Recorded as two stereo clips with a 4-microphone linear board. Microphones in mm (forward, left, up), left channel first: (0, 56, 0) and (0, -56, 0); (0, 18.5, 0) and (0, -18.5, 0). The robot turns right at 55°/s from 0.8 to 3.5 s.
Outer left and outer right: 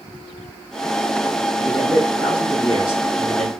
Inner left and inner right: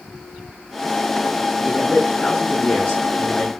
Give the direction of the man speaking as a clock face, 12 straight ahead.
1 o'clock.